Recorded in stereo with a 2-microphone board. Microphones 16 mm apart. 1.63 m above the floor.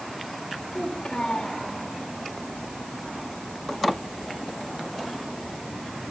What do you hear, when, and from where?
0.7 s a child speaking: 50° left (ahead or behind), 5 m